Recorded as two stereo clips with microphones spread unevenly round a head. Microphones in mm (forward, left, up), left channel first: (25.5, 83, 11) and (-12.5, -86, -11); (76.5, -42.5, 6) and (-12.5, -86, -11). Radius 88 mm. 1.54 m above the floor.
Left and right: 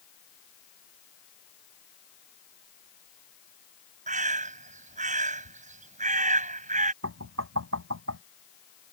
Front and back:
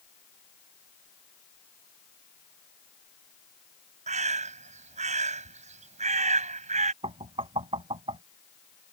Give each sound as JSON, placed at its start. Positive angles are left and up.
{"t": 4.1, "sound": "a bird", "azimuth_deg": -155}
{"t": 7.0, "sound": "knocking", "azimuth_deg": -125}